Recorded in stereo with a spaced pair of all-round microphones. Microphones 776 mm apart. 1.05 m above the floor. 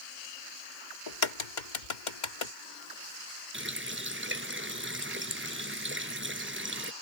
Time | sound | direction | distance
1.1 | a crack | 70° left (ahead or behind) | ?
3.5 | a running tap | 15° right (ahead or behind) | ?